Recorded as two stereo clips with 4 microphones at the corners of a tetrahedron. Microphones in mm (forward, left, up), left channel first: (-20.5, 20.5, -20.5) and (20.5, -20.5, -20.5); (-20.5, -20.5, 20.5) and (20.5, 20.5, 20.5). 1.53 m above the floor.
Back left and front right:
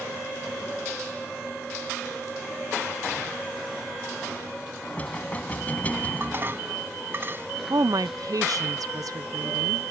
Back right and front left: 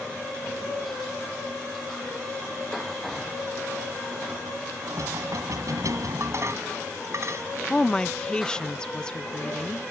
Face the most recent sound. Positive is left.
turn(degrees=-60)